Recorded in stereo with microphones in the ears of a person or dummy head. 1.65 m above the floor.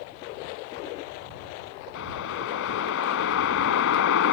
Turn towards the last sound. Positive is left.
turn(degrees=70)  # may be behind; listen again after turning